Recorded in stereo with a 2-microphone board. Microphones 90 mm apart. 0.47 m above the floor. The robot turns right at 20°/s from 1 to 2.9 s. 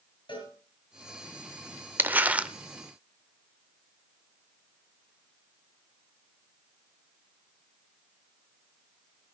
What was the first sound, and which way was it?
A cowbell, 60° left (ahead or behind).